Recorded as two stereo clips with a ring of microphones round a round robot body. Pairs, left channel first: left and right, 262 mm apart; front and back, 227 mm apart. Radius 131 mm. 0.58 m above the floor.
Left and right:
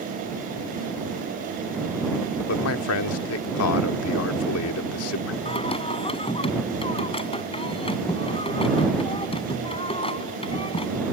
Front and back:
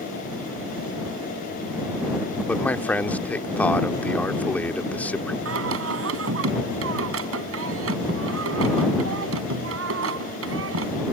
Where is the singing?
160° left.